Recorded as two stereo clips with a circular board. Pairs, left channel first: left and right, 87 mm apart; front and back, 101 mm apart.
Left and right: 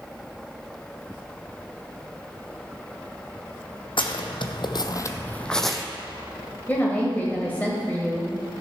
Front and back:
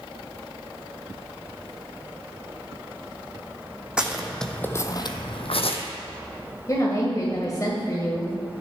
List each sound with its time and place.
4.0 s footsteps: 100° left, 1.2 m; by 5.8 s 5° right, 1.1 m
6.7 s a woman speaking: 30° left, 1.5 m